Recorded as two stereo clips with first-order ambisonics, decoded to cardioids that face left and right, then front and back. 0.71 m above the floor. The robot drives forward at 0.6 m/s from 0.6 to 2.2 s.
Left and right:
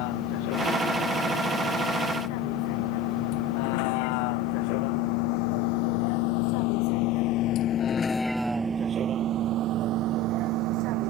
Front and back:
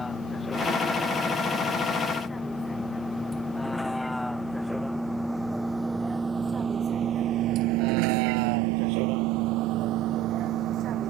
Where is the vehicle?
80° left; by 11.1 s 125° right.